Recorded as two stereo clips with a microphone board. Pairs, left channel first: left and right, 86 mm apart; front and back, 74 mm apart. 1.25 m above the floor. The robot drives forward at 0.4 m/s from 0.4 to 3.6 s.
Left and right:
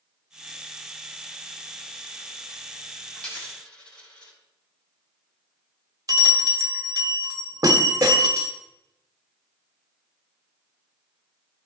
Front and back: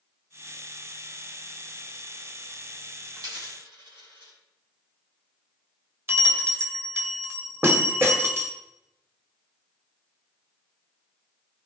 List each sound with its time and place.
3.1 s a dropped coin: 170° left, 3.5 m
6.1 s a bell: 125° right, 1.3 m